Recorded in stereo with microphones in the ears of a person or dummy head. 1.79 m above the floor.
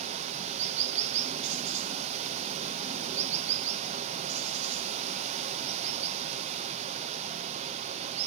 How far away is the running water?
About 0.8 m.